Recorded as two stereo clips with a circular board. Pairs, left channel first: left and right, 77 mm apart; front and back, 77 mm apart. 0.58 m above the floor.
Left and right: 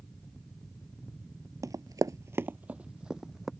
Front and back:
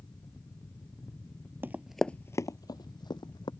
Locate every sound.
1.6 s running footsteps: 125° right; by 3.5 s 5° right